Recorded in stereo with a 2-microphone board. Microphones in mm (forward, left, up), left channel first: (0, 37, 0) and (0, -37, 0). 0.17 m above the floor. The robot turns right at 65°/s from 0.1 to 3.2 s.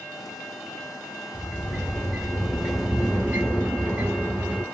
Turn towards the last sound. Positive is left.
turn(degrees=-15)  # may be behind; listen again after turning